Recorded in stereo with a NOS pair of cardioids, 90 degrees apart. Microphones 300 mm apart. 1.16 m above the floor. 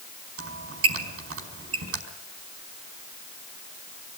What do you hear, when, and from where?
0.4 s a squeak: 45° right, 4.5 m